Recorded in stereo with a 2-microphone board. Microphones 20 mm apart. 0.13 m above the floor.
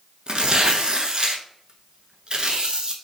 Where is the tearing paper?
45° right (ahead or behind), 0.5 m.